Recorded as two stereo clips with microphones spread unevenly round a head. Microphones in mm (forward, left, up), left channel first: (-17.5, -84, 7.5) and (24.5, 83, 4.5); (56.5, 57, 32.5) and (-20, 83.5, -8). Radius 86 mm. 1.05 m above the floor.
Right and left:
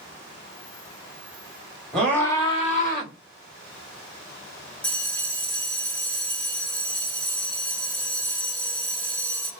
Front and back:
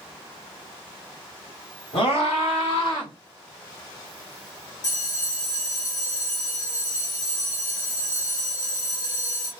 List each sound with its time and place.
1.9 s a scream: 15° right, 1.7 m; by 3.1 s 85° right, 1.5 m
4.8 s a bell: 25° right, 1.3 m